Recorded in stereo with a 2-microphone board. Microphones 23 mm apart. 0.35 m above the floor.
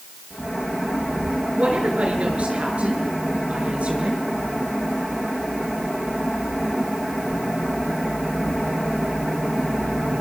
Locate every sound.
1.5 s a woman speaking: 60° right (ahead or behind), 7 m